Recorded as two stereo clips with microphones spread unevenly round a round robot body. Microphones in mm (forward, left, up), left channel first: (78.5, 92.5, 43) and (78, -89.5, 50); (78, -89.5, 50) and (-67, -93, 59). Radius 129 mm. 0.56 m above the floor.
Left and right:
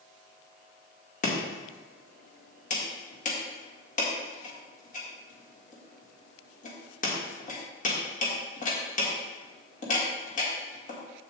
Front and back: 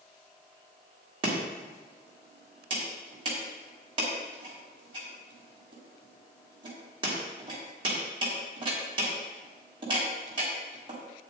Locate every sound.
1.2 s chopping: 125° left, 1.8 m